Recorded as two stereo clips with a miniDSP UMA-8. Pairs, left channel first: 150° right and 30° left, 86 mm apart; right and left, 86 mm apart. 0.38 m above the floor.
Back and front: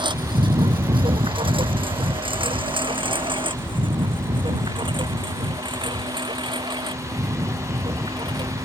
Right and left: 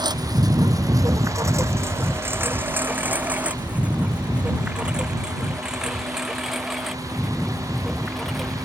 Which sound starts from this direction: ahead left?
A lawn mower, at 0.0 s.